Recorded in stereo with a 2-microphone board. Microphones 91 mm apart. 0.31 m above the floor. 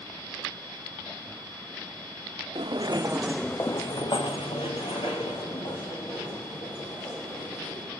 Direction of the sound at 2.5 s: 60° right (ahead or behind).